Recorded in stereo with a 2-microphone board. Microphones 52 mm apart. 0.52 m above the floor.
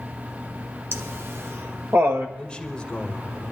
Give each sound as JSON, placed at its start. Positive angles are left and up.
{"t": 0.9, "sound": "laughter", "side_deg": -50, "distance_m": 1.5}
{"t": 2.4, "sound": "a man speaking", "side_deg": 20, "distance_m": 2.5}